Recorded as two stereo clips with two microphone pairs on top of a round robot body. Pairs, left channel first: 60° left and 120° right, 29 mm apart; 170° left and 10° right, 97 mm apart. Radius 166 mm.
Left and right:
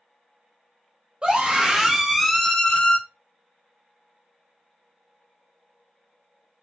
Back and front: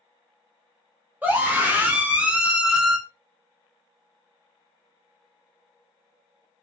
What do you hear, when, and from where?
1.2 s a scream: 80° right, 1.0 m; by 3.0 s 80° left, 0.8 m